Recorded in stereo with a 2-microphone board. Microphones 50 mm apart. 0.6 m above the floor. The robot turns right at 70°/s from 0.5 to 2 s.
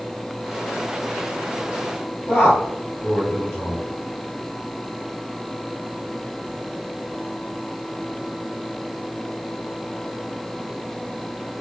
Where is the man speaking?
55° left (ahead or behind), 1.6 m.